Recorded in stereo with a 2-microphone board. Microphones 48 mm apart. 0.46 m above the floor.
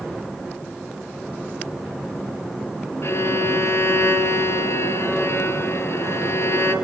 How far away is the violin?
About 4 m.